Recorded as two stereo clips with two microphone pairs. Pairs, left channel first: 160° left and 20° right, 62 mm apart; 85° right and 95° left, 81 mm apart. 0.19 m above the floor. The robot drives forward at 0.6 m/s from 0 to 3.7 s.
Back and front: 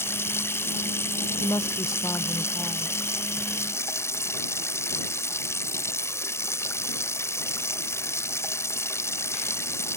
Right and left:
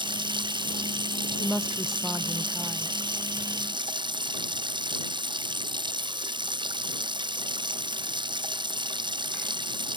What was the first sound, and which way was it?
Running water, 110° left.